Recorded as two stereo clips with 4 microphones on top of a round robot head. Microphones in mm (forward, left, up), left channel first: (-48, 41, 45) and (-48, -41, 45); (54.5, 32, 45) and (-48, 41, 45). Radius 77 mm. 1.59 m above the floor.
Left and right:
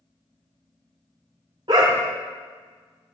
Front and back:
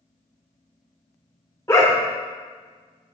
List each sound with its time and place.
1.7 s a dog barking: 70° right, 1.4 m